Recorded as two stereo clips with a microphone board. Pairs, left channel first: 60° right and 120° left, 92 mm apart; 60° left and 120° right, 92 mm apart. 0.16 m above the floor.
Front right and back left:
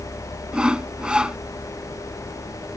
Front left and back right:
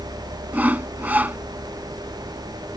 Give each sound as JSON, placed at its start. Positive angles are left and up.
{"t": 0.5, "sound": "sawing", "azimuth_deg": -170}